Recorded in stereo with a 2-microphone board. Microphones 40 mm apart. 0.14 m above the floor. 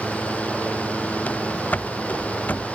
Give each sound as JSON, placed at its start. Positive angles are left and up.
{"t": 1.3, "sound": "running footsteps", "side_deg": 40}